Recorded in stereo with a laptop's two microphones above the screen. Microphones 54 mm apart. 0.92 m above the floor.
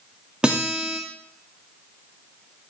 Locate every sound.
0.4 s a guitar: 20° right (ahead or behind), 2.5 m